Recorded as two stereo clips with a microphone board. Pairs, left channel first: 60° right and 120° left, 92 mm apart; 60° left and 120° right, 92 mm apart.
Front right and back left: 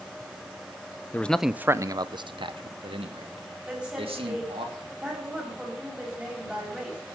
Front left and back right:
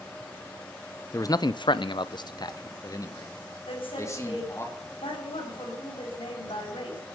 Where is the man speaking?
10° left, 0.6 m; by 4.7 s 120° left, 3 m.